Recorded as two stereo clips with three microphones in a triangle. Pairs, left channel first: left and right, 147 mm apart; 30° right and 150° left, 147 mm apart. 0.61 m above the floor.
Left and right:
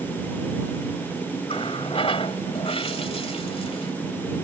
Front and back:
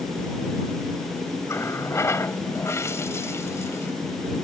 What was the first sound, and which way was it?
A running tap, 40° left.